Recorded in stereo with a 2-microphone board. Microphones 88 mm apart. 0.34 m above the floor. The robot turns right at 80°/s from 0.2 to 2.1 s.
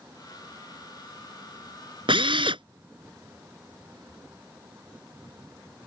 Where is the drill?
80° right.